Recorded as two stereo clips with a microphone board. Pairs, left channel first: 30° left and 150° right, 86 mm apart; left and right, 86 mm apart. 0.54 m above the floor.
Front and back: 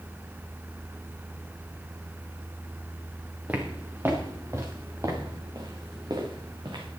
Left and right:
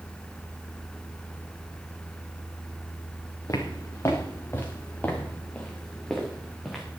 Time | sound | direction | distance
3.5 | footsteps | 140° left | 3.5 m